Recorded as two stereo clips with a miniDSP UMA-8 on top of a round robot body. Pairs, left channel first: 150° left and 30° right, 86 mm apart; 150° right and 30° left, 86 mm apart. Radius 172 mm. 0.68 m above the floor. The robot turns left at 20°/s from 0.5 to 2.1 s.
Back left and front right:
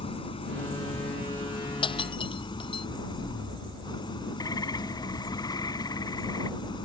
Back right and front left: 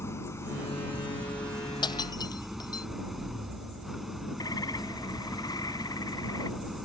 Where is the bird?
Straight behind.